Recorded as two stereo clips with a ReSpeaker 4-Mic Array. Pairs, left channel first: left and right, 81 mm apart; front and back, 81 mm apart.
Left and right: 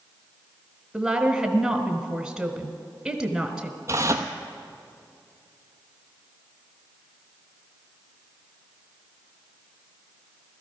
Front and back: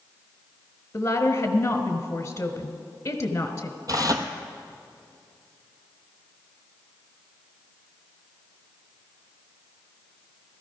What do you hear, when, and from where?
0.9 s a woman speaking: 10° right, 1.3 m
3.9 s tearing paper: 140° right, 1.1 m